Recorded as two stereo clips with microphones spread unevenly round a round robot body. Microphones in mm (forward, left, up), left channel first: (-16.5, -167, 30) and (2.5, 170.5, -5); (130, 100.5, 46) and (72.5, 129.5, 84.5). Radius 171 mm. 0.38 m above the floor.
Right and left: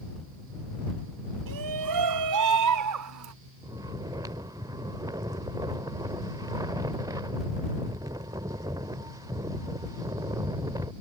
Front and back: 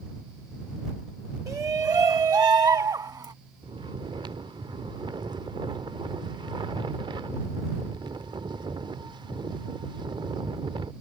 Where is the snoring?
155° left.